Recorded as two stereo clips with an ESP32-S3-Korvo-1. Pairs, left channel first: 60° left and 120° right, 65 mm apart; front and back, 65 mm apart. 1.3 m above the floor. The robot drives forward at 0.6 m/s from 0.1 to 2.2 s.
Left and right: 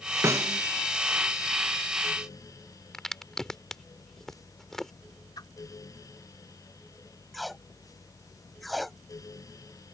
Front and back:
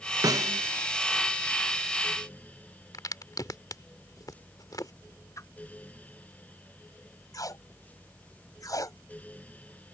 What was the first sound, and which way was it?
A snare drum, 165° right.